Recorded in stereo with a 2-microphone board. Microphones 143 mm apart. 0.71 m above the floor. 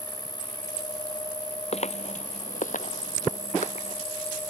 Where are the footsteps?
50° left (ahead or behind); by 4.0 s 55° left (ahead or behind).